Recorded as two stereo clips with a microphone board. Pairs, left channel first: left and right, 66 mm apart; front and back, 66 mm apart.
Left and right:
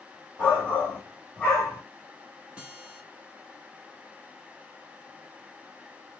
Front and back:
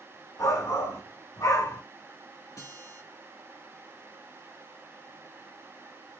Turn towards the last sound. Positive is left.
turn(degrees=-15)